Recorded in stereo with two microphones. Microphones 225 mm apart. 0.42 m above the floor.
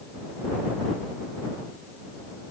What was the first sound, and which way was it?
Only background noise.